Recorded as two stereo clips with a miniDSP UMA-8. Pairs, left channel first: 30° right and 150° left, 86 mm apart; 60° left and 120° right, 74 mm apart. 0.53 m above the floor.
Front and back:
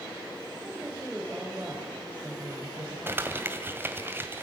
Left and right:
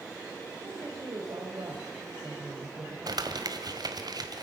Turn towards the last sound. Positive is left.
turn(degrees=-145)